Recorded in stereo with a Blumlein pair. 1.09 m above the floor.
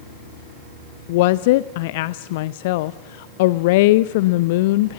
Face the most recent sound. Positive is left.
turn(degrees=50)